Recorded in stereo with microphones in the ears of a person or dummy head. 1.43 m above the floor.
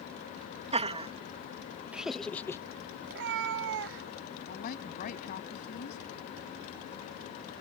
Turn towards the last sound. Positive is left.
turn(degrees=45)  # may be behind; listen again after turning